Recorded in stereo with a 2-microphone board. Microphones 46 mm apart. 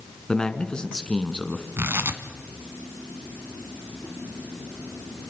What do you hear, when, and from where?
0.3 s a man speaking: 20° left (ahead or behind), 2.5 m
1.8 s tearing paper: 60° right (ahead or behind), 1.9 m